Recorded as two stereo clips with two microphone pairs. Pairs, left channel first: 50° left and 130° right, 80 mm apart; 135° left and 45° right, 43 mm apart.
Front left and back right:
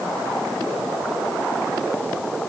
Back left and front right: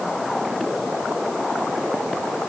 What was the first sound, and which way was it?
Only background noise.